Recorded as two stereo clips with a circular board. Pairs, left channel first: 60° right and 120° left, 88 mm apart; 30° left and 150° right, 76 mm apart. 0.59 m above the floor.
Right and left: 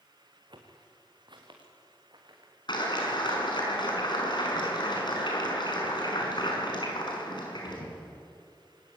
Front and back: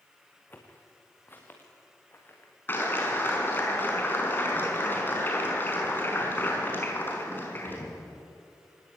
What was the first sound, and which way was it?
Footsteps, 95° left.